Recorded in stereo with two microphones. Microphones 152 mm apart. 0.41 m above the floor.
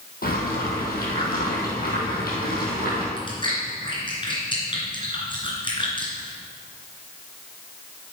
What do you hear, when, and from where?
0.2 s boiling: 75° left (ahead or behind), 3 m
3.2 s chewing: 35° left (ahead or behind), 3 m